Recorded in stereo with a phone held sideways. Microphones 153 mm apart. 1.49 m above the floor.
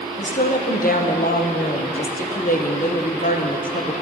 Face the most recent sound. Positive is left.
turn(degrees=60)  # may be behind; listen again after turning